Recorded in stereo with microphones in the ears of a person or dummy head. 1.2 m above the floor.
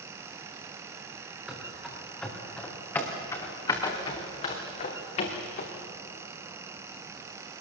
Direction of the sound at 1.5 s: 5° right (ahead or behind).